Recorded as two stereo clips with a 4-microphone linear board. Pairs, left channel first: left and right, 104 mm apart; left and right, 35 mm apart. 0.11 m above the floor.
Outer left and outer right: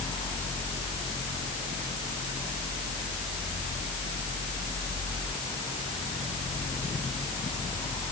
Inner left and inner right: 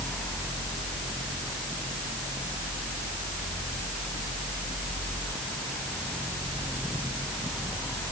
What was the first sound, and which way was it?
Only background noise.